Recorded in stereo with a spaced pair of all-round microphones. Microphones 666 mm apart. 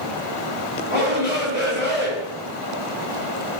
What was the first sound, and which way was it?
A shout, 60° left (ahead or behind).